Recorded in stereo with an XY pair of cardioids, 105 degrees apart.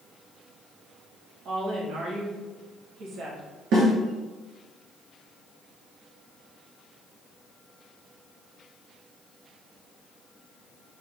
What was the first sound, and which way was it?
A woman speaking, 65° right.